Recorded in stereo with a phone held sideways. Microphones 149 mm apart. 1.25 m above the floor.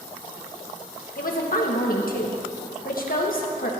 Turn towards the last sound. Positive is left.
turn(degrees=70)  # may be behind; listen again after turning